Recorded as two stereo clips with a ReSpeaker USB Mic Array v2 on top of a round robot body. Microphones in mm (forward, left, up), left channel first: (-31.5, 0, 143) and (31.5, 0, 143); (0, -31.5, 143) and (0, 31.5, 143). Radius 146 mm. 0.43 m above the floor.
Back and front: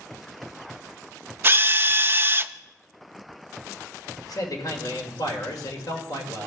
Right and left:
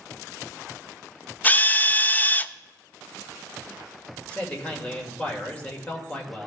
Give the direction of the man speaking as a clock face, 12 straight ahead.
5 o'clock.